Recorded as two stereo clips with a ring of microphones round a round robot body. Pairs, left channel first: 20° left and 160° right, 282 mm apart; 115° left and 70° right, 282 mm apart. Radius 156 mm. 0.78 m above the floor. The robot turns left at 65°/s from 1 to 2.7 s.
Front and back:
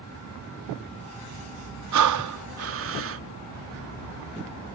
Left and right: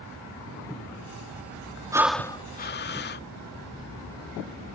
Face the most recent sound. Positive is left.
turn(degrees=165)